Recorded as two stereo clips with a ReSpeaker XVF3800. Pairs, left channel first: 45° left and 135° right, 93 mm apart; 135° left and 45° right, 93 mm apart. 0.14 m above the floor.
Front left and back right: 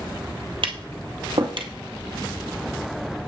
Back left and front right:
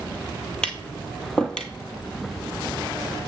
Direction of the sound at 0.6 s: 145° right.